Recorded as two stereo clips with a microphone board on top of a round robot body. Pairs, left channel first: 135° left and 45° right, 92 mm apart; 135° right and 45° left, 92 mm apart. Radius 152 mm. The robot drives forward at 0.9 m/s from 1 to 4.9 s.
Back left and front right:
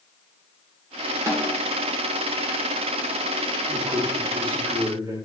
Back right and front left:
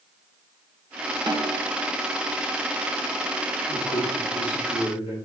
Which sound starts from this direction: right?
A man speaking, at 3.7 s.